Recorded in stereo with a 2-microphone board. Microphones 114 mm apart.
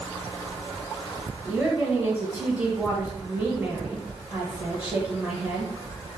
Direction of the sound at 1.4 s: 15° right (ahead or behind).